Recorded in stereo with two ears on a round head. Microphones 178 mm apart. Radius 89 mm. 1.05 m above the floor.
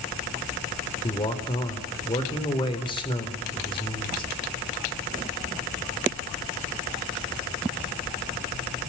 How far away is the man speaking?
About 3.5 m.